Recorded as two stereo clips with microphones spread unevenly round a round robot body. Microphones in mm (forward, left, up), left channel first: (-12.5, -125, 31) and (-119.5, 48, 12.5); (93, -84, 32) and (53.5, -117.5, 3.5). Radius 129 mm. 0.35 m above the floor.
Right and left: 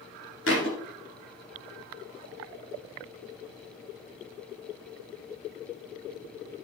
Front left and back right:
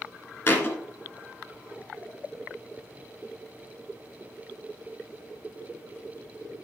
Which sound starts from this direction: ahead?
A thud, at 0.5 s.